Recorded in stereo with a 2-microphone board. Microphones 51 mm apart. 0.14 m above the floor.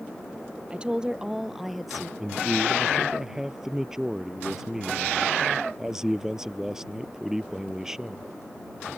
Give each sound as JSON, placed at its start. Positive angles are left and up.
{"t": 0.7, "sound": "a woman speaking", "side_deg": -20}
{"t": 2.2, "sound": "a man speaking", "side_deg": -10}